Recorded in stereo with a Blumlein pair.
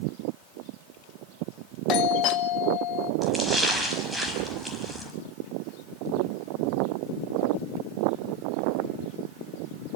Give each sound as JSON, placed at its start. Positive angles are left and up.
{"t": 1.9, "sound": "a doorbell", "azimuth_deg": 35, "distance_m": 1.5}
{"t": 3.2, "sound": "a splash", "azimuth_deg": -5, "distance_m": 5.0}